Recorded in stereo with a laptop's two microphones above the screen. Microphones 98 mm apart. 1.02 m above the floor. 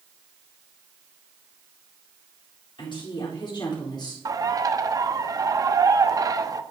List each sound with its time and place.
2.8 s a woman speaking: 55° left (ahead or behind), 3.5 m; by 4.2 s 45° left (ahead or behind), 4 m
4.2 s a bird: 40° right (ahead or behind), 0.6 m